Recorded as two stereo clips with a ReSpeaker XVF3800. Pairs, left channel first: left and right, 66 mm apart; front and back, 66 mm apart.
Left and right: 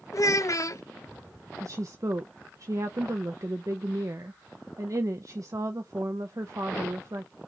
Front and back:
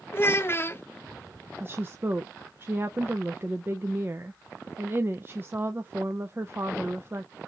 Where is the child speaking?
50° left, 0.6 m.